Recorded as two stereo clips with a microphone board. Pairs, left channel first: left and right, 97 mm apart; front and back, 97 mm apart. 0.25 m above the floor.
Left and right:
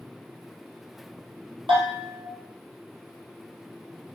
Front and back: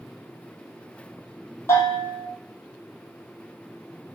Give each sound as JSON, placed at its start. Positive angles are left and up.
{"t": 1.7, "sound": "a bell", "azimuth_deg": -60, "distance_m": 1.5}